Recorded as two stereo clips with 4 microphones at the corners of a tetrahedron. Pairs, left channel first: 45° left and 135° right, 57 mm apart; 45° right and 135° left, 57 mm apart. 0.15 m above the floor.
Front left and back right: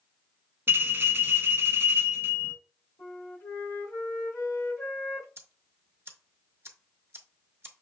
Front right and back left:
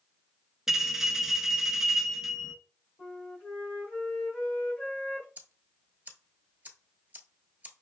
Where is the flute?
15° left, 2.5 m.